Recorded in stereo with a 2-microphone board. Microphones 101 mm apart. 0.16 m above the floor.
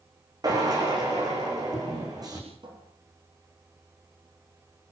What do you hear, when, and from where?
0.4 s a drill: 40° right (ahead or behind), 9 m
2.6 s a cupboard door: 50° right (ahead or behind), 6.5 m